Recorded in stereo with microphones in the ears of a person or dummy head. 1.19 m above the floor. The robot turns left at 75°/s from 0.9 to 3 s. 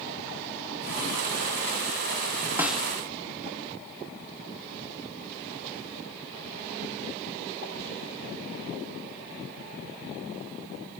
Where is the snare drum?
10° right (ahead or behind), 0.6 m; by 2.9 s 5° left (ahead or behind), 0.6 m.